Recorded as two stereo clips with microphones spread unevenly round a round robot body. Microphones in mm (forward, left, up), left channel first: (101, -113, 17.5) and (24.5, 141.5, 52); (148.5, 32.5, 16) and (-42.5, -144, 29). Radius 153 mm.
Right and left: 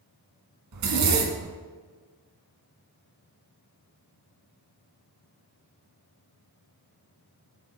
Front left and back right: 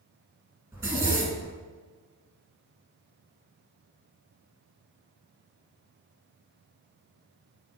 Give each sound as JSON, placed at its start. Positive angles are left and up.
{"t": 0.7, "sound": "a zipper", "azimuth_deg": 140, "distance_m": 1.4}